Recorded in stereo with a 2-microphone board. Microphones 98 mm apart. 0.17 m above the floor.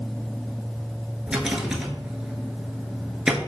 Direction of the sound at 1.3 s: 10° right (ahead or behind).